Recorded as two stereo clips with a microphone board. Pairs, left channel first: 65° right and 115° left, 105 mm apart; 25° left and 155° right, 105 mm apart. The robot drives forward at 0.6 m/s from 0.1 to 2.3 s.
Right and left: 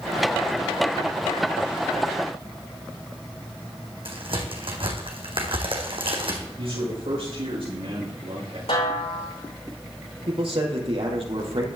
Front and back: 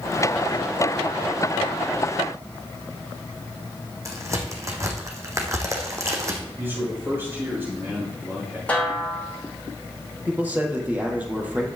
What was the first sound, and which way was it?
A crack, 145° left.